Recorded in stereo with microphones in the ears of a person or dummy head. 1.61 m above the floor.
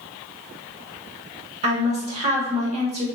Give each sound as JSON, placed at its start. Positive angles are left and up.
{"t": 1.6, "sound": "a woman speaking", "side_deg": -35, "distance_m": 0.9}